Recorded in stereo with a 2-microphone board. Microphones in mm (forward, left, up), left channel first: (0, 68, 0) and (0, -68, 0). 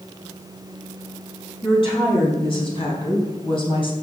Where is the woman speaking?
40° left (ahead or behind), 4.5 m.